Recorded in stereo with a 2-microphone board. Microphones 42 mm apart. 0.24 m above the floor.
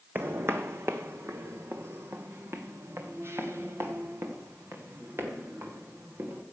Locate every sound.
0.1 s footsteps: 55° right (ahead or behind), 0.9 m; by 6.4 s 65° right (ahead or behind), 4 m